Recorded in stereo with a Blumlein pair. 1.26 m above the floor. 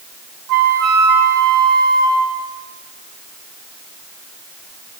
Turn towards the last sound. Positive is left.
turn(degrees=-35)